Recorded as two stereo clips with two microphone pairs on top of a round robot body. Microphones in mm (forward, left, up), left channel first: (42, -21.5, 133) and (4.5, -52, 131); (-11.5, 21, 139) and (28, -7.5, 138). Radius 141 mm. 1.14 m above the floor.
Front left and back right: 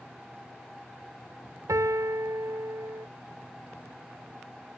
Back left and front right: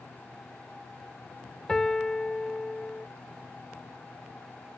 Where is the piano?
140° right.